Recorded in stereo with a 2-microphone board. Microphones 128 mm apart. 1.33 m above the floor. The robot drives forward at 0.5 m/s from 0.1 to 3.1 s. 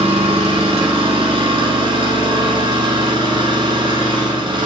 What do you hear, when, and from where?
0.0 s an engine running: 50° right (ahead or behind), 4 m; by 4.7 s 40° right (ahead or behind), 5 m